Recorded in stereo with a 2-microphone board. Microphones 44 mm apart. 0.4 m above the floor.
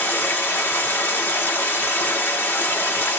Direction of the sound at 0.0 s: 80° left.